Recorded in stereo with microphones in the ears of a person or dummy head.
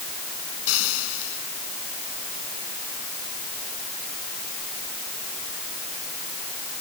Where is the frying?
85° left.